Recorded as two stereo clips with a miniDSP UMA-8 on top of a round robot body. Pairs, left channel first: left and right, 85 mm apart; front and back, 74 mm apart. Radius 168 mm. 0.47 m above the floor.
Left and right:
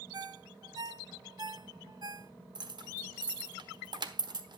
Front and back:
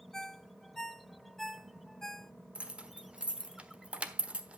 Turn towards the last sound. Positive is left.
turn(degrees=-110)